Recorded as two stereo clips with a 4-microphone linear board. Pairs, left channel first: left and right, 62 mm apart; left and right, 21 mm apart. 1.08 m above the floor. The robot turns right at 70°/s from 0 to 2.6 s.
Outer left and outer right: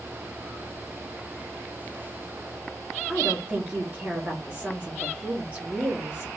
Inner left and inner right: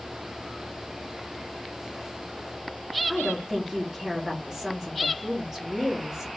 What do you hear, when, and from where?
3.1 s a woman speaking: 30° right (ahead or behind), 1.2 m